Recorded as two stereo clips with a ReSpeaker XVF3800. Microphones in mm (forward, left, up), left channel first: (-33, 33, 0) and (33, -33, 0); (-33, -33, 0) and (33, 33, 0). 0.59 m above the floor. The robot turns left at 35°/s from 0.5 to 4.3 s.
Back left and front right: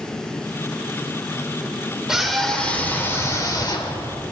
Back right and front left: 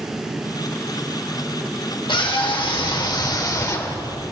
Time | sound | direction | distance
2.1 | a scream | 130° right | 2.5 m